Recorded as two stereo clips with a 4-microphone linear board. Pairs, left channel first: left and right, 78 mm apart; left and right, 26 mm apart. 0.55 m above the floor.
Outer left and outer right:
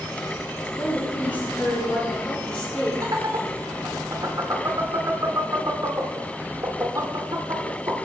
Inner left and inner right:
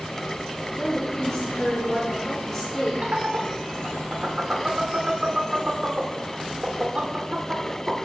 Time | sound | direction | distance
0.8 | a woman speaking | 30° left (ahead or behind) | 7.5 m
3.0 | laughter | 55° right (ahead or behind) | 1.7 m